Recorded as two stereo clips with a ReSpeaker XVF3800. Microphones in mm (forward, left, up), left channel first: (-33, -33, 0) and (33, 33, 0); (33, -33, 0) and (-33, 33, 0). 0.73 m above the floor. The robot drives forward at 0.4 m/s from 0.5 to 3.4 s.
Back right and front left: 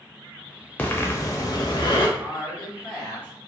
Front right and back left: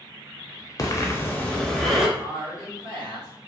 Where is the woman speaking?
140° left, 1.7 m; by 3.3 s 150° left, 2 m.